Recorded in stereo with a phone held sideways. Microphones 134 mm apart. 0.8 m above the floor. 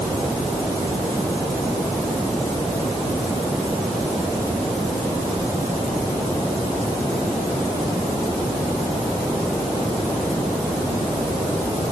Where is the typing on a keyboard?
No typing on a keyboard in this recording.